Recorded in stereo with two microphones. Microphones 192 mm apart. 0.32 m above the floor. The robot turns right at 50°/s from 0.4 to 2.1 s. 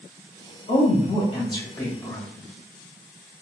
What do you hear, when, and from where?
0.7 s a woman speaking: 95° left, 1.2 m; by 2.3 s 165° left, 1.2 m